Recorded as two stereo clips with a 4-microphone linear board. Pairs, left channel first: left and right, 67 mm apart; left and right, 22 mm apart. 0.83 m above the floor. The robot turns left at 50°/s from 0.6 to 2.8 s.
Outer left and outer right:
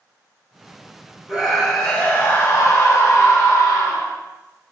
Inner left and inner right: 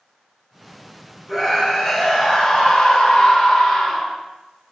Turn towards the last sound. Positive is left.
turn(degrees=120)